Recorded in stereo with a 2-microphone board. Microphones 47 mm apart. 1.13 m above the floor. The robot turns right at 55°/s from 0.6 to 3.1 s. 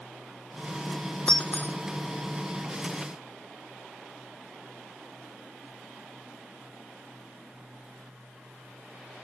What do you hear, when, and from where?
1.3 s breaking glass: 20° left (ahead or behind); by 1.8 s 45° left (ahead or behind)